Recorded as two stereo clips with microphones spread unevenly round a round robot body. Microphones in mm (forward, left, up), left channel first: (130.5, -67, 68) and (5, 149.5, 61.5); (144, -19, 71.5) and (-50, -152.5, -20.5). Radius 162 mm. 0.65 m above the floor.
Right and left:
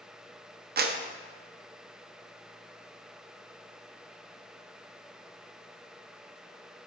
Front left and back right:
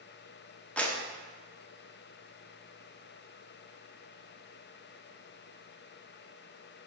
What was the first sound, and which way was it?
A clap, 145° left.